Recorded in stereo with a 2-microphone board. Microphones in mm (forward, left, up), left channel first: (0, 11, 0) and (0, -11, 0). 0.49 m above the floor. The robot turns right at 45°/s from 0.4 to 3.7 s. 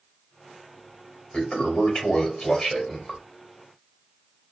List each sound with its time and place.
1.3 s a toilet flushing: 85° left, 1.6 m; by 3.2 s 165° left, 1.6 m